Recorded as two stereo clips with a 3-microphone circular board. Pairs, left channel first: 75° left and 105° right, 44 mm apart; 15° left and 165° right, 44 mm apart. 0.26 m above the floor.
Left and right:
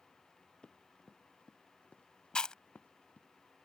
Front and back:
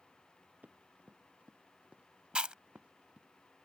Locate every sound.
0.6 s running footsteps: 145° left; by 3.3 s 130° left
2.4 s chewing: 140° left